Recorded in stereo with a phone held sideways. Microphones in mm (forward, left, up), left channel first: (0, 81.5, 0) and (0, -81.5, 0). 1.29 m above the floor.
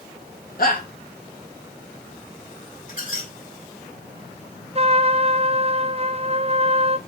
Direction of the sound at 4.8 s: 40° right (ahead or behind).